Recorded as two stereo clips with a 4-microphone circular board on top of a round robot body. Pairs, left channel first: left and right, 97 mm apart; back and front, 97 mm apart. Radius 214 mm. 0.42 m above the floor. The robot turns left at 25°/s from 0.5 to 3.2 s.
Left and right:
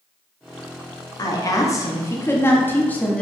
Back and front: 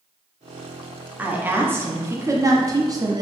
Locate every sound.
1.2 s a woman speaking: 65° left, 1.2 m; by 3.2 s 15° left, 1.2 m